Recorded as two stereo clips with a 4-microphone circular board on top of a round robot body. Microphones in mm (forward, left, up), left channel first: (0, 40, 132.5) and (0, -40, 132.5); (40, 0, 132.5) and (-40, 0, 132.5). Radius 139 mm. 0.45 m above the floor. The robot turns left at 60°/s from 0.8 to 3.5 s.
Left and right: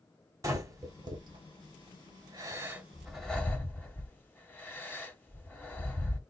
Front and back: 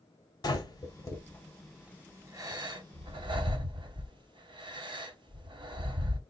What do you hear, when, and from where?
0.4 s breathing: 40° right, 1.6 m; by 6.2 s 160° left, 1.6 m